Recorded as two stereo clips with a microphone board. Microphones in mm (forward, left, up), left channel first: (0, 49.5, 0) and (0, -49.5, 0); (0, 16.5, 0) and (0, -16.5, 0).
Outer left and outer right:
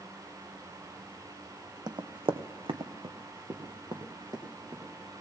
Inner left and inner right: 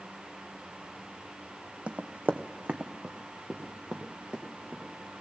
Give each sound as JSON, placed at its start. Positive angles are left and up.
{"t": 1.9, "sound": "running footsteps", "side_deg": -45, "distance_m": 0.8}